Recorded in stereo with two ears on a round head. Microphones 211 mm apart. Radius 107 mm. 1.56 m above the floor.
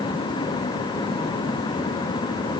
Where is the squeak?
I don't hear a squeak.